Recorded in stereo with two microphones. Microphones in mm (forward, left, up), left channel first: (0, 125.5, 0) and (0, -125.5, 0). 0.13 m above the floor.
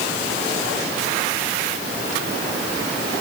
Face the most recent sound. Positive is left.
No sound to turn to.